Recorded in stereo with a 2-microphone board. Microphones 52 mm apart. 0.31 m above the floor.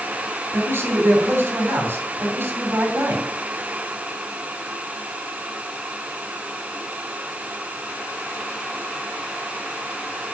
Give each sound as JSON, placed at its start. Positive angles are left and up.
{"t": 0.5, "sound": "a man speaking", "side_deg": -55, "distance_m": 2.5}